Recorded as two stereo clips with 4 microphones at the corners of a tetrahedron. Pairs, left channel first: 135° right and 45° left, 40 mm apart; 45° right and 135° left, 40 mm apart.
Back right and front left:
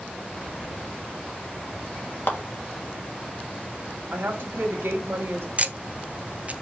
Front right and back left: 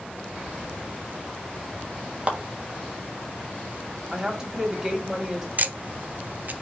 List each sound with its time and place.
2.3 s a clap: 165° right, 1.4 m
4.1 s a woman speaking: 60° left, 1.9 m
5.6 s ticking: 95° left, 0.7 m